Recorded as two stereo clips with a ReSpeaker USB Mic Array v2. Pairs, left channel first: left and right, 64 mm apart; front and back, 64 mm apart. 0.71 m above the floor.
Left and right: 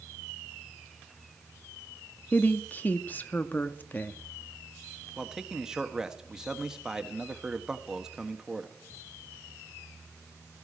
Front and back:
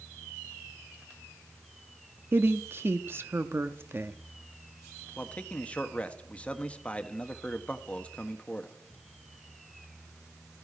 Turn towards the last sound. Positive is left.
turn(degrees=-25)